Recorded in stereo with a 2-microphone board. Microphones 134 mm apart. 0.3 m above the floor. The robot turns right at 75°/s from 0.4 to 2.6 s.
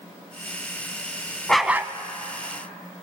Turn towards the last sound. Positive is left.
turn(degrees=-100)